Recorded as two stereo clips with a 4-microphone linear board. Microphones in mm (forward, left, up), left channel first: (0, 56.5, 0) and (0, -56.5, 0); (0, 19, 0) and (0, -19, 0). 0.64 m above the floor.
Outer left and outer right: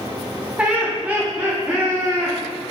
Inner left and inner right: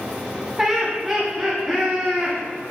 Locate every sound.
0.6 s laughter: 10° right (ahead or behind), 1.1 m